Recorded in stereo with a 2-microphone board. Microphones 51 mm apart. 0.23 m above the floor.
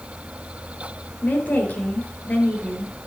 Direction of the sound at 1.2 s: 35° left (ahead or behind).